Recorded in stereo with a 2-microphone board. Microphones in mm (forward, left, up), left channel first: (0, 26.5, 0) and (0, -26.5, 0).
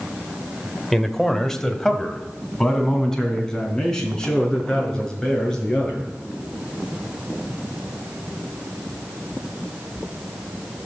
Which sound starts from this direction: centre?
A man speaking, at 0.9 s.